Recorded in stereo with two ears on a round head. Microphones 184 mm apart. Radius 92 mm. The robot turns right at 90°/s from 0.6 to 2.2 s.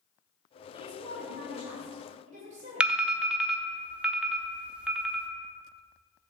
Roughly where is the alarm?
Centre.